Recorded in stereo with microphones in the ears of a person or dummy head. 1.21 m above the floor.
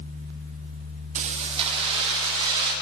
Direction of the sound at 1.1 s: 35° right (ahead or behind).